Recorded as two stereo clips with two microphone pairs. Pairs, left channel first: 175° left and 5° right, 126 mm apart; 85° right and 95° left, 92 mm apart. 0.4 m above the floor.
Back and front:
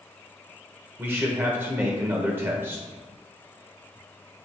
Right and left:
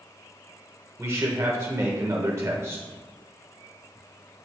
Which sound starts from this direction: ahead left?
A man speaking, at 1.0 s.